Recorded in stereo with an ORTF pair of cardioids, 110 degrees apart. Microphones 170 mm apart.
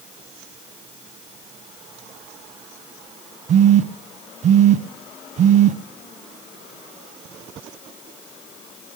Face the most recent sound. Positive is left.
turn(degrees=-45)